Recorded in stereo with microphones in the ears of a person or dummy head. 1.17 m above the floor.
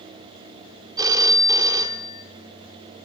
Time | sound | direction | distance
1.0 | a phone ringing | 20° right (ahead or behind) | 1.6 m